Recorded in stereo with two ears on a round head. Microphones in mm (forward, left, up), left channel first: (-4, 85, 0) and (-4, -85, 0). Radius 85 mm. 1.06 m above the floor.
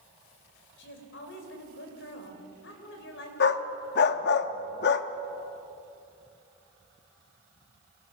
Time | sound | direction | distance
0.8 | a woman speaking | 65° left (ahead or behind) | 4 m
3.4 | a dog barking | 55° left (ahead or behind) | 0.8 m